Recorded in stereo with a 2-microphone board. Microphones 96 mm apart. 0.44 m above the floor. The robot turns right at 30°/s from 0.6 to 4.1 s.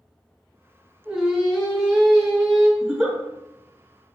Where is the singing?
30° right, 1.1 m; by 2.7 s 20° left, 1.1 m.